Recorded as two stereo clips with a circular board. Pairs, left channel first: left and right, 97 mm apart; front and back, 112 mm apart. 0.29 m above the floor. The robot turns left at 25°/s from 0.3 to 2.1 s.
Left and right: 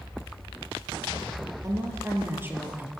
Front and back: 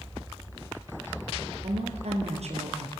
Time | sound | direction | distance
1.6 | a woman speaking | 145° right | 6.5 m